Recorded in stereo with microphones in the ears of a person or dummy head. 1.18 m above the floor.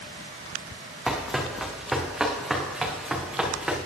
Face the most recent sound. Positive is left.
turn(degrees=0)  # may be behind; listen again after turning